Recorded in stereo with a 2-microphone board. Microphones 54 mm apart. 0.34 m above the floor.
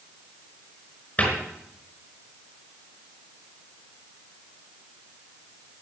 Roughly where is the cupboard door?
Left.